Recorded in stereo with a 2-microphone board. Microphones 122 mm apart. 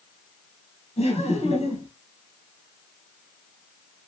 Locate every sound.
1.0 s laughter: 60° left (ahead or behind), 2 m